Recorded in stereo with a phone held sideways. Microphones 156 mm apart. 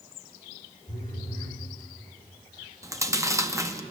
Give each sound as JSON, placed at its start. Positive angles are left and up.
{"t": 0.9, "sound": "a phone buzzing", "side_deg": 50, "distance_m": 5.5}
{"t": 2.8, "sound": "chewing", "side_deg": -20, "distance_m": 0.6}